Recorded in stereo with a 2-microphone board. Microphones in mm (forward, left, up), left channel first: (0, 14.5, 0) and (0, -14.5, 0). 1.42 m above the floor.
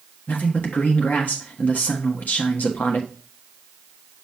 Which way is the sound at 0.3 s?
75° left (ahead or behind).